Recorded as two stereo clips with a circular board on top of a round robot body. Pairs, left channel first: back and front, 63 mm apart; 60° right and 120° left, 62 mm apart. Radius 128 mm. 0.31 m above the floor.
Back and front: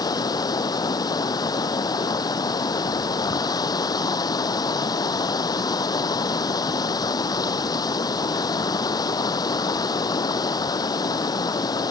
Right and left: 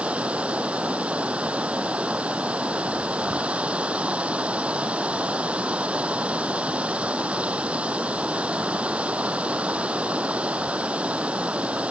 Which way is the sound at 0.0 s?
170° right.